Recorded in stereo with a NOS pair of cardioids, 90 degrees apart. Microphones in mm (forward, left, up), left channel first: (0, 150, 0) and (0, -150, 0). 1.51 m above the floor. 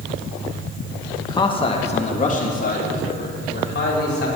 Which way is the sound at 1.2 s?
10° left.